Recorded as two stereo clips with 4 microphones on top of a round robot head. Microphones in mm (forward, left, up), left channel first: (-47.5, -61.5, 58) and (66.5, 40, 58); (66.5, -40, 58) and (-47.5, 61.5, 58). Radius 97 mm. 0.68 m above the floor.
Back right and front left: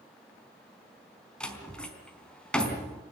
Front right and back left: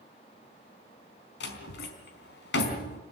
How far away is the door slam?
About 4 m.